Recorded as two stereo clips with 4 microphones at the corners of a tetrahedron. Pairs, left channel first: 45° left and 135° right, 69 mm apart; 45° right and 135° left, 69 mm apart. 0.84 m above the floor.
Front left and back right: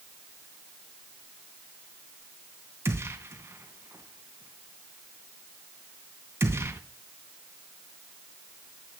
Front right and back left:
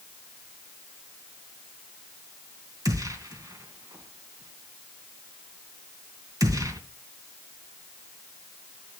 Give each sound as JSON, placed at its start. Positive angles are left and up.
{"t": 2.9, "sound": "a gunshot", "azimuth_deg": 170, "distance_m": 2.5}